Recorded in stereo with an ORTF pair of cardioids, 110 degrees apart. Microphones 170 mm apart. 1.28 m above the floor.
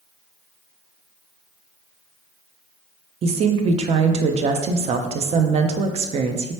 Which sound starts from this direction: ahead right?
A woman speaking, at 3.2 s.